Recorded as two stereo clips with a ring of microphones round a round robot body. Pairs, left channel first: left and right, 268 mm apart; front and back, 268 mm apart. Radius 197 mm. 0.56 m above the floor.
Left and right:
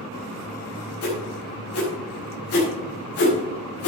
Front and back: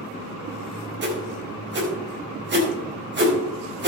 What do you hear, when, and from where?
1.0 s a whoosh: 135° left, 4.5 m